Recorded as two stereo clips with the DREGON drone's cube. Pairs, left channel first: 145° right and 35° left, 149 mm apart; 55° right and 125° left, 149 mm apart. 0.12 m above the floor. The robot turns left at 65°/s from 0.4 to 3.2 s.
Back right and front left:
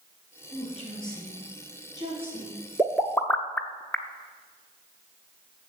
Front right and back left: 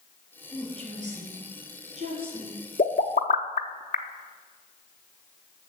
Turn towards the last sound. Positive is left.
turn(degrees=-70)